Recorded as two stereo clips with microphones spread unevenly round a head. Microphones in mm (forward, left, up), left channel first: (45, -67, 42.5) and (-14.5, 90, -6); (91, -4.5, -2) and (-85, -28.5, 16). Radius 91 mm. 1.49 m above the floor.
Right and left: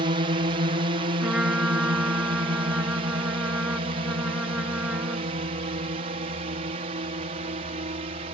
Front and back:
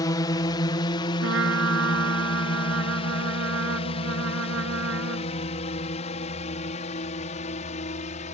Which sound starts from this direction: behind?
A trumpet, at 1.2 s.